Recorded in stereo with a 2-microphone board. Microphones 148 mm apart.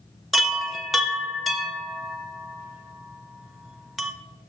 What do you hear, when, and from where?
0.3 s a chime: centre (ahead or behind), 0.6 m